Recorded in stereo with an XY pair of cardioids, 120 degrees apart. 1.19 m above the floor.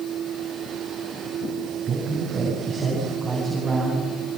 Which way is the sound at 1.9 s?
35° right.